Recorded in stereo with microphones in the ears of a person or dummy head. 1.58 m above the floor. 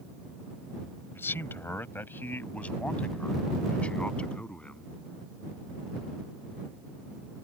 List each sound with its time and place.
1.1 s a man speaking: 15° left (ahead or behind); by 4.9 s 5° left (ahead or behind)